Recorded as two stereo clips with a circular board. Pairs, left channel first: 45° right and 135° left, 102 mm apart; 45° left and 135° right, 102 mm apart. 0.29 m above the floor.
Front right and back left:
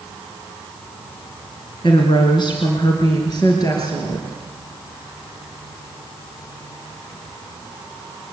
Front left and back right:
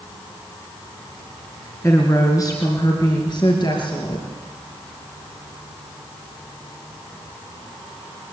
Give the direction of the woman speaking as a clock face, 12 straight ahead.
1 o'clock.